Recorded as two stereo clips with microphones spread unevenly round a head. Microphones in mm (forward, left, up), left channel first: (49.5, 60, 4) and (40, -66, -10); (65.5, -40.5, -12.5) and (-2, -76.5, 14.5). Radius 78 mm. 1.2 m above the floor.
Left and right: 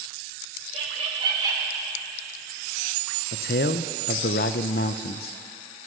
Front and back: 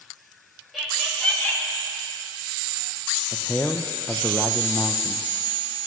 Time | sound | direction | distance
0.7 | laughter | 60° right | 2.5 m
3.3 | a man speaking | 100° left | 0.5 m